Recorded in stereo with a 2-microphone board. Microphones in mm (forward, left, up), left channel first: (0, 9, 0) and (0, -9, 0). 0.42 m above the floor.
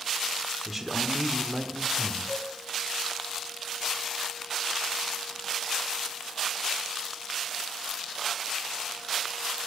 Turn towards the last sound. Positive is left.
turn(degrees=55)  # may be behind; listen again after turning